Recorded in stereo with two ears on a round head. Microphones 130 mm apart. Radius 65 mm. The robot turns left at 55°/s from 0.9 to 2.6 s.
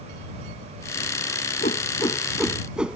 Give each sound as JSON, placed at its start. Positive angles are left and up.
{"t": 1.6, "sound": "a whoosh", "side_deg": 50}